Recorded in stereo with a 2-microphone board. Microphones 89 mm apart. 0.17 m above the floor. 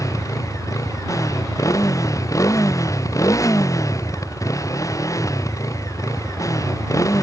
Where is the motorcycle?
40° left (ahead or behind).